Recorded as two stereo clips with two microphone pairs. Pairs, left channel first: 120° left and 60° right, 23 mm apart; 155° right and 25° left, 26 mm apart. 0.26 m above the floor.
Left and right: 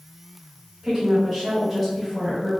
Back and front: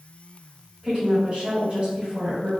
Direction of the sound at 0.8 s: 30° right.